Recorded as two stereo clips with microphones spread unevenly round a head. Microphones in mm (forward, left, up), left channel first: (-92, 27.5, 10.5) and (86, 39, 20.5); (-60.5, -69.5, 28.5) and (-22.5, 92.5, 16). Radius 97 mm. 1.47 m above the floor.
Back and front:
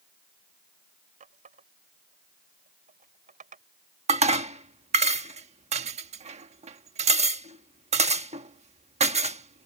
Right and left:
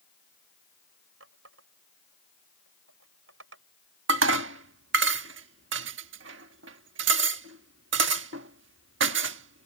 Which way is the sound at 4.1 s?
50° left.